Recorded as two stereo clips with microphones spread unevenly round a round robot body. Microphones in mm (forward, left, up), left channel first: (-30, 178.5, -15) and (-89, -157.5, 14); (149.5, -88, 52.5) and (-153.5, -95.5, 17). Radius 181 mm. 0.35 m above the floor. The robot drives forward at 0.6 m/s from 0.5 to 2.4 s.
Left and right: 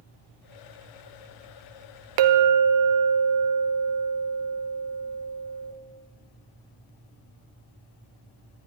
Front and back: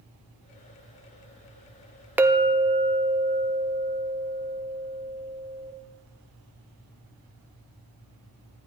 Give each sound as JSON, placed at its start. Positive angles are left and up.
{"t": 2.2, "sound": "a clink", "azimuth_deg": -100, "distance_m": 0.6}